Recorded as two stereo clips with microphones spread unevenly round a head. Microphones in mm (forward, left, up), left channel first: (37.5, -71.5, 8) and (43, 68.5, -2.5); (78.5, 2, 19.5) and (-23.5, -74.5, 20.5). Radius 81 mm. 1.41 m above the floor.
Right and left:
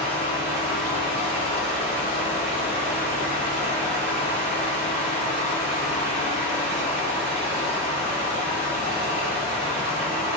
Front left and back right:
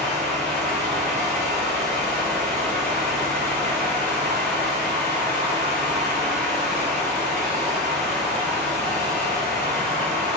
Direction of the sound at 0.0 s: 80° left.